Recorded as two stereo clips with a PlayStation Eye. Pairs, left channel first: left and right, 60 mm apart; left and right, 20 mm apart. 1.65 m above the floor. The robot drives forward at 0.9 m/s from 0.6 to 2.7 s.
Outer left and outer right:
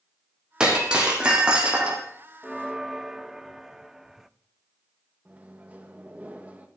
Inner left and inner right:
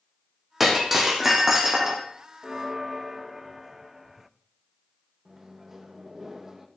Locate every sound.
0.6 s breaking glass: 10° right (ahead or behind), 4.5 m; by 2.0 s 15° right (ahead or behind), 3.5 m
2.4 s a bell: 10° right (ahead or behind), 0.5 m; by 4.3 s 5° right (ahead or behind), 0.7 m
5.2 s a microwave: 20° right (ahead or behind), 1.9 m